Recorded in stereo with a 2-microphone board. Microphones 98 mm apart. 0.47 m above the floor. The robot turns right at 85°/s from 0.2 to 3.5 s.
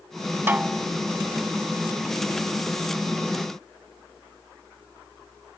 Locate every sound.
0.5 s a snare drum: 20° right; by 0.9 s 15° left